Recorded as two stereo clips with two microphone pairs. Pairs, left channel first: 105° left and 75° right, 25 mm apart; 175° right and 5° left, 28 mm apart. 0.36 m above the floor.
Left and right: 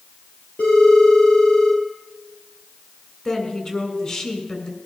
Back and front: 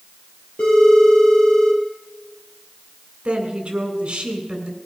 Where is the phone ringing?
140° left, 6.5 m.